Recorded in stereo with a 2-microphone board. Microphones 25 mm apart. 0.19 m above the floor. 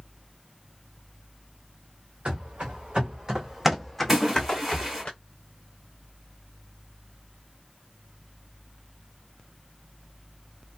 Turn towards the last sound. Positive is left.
turn(degrees=-15)  # may be behind; listen again after turning